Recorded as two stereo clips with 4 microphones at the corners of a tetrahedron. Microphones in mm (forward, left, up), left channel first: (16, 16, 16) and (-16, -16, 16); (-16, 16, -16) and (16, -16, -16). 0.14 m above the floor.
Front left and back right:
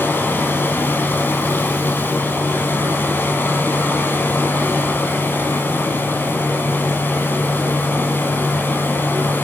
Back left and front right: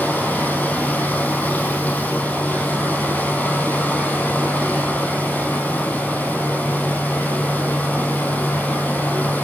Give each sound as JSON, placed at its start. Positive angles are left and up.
{"t": 0.0, "sound": "running water", "azimuth_deg": 80, "distance_m": 2.5}